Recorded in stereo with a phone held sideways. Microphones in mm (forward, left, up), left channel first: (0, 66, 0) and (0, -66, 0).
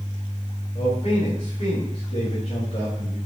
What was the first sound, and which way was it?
A man speaking, 50° left (ahead or behind).